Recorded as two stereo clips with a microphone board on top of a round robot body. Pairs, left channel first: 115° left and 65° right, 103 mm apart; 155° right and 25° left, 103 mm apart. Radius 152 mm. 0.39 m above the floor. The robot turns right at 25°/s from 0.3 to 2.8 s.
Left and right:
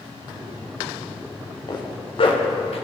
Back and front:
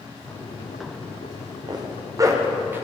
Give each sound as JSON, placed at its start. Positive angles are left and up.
{"t": 1.7, "sound": "a zipper", "azimuth_deg": 65, "distance_m": 0.8}